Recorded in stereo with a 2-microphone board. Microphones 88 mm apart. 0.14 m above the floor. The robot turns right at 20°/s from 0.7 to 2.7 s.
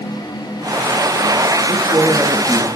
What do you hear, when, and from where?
1.7 s a man speaking: 50° right (ahead or behind), 2.5 m; by 2.7 s 60° right (ahead or behind), 2.5 m